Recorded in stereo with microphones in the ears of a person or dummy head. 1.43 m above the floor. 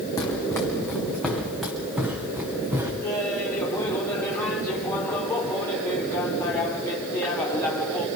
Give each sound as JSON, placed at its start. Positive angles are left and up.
{"t": 0.2, "sound": "running footsteps", "side_deg": 25, "distance_m": 4.0}
{"t": 3.0, "sound": "laughter", "side_deg": 25, "distance_m": 4.5}